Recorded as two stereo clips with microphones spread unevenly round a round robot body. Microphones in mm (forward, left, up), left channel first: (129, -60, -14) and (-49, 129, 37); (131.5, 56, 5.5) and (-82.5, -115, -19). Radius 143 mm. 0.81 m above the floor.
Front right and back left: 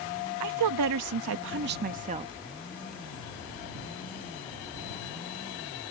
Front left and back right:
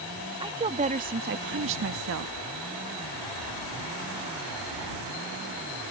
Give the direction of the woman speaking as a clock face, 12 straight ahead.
7 o'clock.